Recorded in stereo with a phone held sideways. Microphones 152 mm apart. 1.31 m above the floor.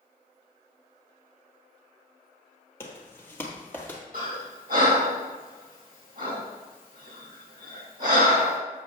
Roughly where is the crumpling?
I don't hear crumpling.